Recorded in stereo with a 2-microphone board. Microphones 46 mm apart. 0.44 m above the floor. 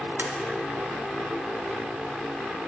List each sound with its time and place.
0.2 s tapping: 55° right (ahead or behind), 0.5 m